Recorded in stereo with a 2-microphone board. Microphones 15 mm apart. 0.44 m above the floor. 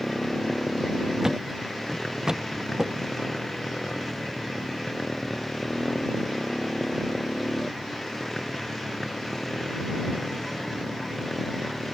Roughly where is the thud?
Right.